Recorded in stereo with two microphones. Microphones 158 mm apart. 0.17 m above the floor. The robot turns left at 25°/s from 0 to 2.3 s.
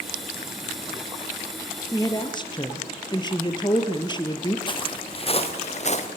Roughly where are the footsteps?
Left.